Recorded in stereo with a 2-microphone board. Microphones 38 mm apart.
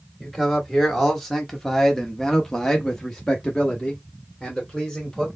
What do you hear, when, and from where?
0.2 s a man speaking: 5° left (ahead or behind), 1.8 m; by 5.3 s centre (ahead or behind), 1.9 m